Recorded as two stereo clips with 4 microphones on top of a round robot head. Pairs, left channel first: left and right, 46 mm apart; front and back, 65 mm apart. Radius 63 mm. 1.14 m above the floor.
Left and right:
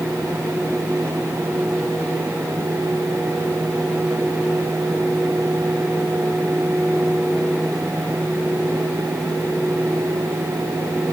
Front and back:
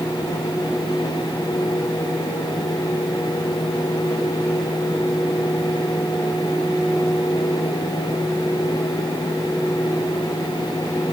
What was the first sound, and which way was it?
Only background noise.